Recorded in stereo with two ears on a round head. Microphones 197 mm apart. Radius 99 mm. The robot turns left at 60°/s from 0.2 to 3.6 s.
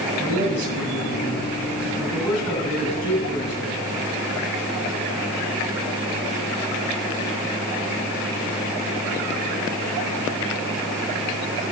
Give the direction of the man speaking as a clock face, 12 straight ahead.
2 o'clock.